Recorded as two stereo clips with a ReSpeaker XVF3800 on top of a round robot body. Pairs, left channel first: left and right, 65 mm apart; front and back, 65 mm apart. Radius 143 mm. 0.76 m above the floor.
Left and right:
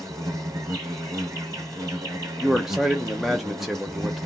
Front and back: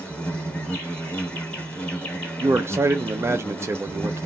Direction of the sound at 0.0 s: 70° right.